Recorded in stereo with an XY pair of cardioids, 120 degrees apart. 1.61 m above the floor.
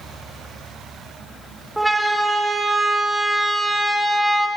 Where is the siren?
5° right, 2 m.